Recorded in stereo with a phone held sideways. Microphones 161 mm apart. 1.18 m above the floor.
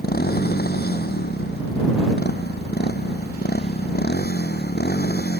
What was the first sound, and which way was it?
A motorcycle, 75° left (ahead or behind).